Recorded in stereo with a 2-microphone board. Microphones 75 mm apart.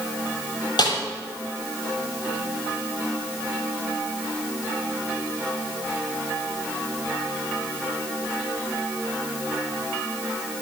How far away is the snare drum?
About 7.5 m.